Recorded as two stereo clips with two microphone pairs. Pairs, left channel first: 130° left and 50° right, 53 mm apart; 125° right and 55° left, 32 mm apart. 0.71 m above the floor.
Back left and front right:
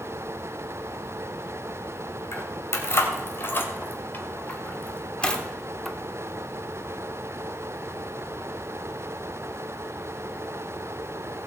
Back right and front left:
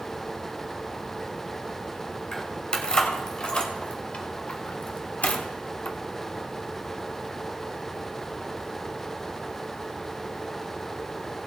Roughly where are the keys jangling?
Behind.